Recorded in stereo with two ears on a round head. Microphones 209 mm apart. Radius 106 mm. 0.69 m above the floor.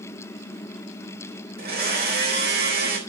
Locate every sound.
1.6 s a blender: 45° right (ahead or behind), 4 m